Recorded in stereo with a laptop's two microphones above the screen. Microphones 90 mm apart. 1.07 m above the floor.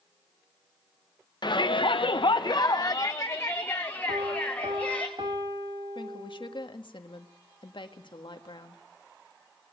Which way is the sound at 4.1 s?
60° right (ahead or behind).